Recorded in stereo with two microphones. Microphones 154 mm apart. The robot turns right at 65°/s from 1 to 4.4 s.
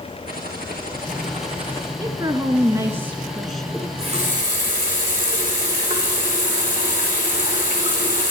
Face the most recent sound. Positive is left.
turn(degrees=-115)